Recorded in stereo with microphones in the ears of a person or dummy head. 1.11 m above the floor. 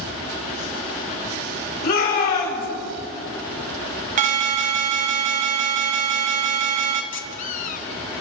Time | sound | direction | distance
1.8 | a shout | 50° left (ahead or behind) | 5.5 m
4.2 | an alarm | 45° right (ahead or behind) | 0.9 m
7.1 | a squeak | 45° left (ahead or behind) | 0.7 m